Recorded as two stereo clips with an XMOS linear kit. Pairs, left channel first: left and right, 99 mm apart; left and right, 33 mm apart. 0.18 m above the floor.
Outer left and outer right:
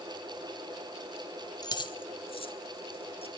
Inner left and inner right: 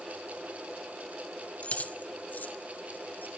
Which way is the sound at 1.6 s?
45° left (ahead or behind).